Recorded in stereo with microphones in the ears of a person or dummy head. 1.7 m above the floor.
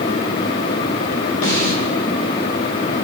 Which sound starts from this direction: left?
A snare drum, at 1.4 s.